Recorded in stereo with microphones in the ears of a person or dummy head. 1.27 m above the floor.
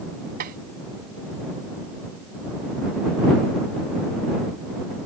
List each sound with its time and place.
0.4 s tapping: 50° right (ahead or behind)